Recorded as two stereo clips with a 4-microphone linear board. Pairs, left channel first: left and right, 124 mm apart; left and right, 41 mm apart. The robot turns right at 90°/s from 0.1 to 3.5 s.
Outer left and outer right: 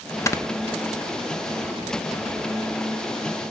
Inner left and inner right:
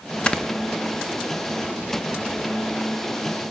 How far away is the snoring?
About 0.6 m.